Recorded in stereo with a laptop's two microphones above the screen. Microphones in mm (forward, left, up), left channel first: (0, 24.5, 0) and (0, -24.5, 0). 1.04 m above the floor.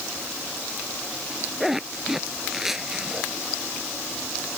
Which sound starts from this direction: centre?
A zipper, at 1.6 s.